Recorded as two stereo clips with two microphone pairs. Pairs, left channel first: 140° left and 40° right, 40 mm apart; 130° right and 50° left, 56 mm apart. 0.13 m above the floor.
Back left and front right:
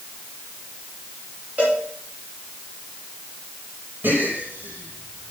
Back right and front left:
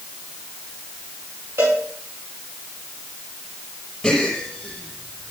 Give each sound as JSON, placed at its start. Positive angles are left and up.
{"t": 1.6, "sound": "a cowbell", "azimuth_deg": 15, "distance_m": 5.5}
{"t": 4.0, "sound": "a gasp", "azimuth_deg": -45, "distance_m": 5.0}